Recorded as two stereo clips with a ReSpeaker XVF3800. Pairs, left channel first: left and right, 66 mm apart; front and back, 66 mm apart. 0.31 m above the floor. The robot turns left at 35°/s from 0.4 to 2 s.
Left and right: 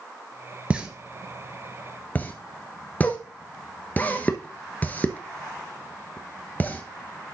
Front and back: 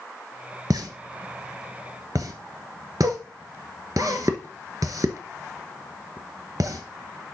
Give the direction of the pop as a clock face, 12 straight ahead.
5 o'clock.